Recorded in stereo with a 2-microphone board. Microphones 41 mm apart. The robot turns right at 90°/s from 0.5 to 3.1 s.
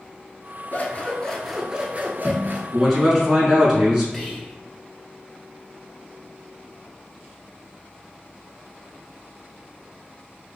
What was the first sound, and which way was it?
Scissors, 115° left.